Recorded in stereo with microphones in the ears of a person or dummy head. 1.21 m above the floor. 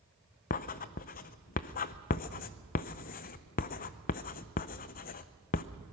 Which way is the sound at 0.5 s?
40° left (ahead or behind).